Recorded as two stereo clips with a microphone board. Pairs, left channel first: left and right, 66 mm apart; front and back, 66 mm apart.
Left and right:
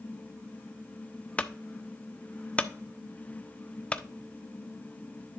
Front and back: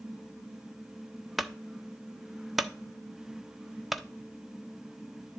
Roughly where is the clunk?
Left.